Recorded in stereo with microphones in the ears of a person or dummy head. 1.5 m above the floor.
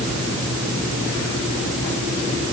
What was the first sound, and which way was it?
Only background noise.